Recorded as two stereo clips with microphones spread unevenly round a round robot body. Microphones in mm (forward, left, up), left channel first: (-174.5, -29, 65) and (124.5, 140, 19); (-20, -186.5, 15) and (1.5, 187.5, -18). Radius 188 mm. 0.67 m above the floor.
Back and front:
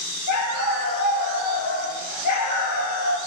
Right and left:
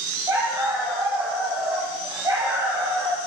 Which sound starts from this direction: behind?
A dog barking, at 0.3 s.